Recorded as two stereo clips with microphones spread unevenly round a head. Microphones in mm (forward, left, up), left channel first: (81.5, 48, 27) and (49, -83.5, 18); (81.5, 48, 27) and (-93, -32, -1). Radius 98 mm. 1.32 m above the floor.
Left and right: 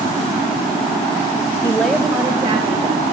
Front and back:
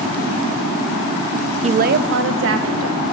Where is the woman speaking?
150° left, 0.7 m; by 3.0 s 160° right, 1.7 m.